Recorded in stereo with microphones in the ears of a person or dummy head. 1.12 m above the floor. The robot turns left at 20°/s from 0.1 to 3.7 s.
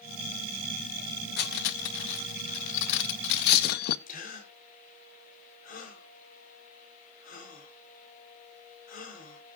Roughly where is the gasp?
Left.